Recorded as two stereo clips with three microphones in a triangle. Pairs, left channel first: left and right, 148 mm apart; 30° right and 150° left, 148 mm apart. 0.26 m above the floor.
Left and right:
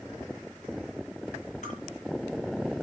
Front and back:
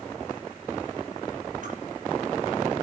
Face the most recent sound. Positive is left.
turn(degrees=125)